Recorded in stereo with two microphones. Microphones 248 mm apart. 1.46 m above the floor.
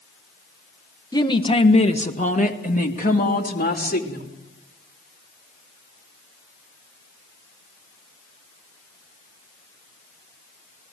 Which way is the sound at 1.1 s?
15° left (ahead or behind).